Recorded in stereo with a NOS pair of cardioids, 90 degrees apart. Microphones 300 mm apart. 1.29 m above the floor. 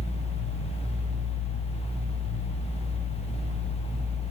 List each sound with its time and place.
0.0 s a fan: 20° left, 1.1 m